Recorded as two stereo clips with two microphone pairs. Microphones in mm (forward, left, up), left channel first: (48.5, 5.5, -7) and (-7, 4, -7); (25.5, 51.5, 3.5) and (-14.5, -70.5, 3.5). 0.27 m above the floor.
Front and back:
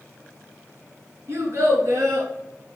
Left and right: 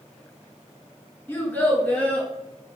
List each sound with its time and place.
1.3 s a child speaking: 145° left, 1.6 m; by 2.3 s 155° left, 2.5 m